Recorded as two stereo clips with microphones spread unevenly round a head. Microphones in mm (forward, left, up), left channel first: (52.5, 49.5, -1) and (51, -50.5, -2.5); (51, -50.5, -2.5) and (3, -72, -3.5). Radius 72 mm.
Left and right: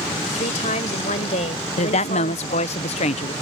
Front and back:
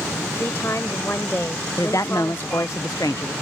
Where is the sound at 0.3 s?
95° left.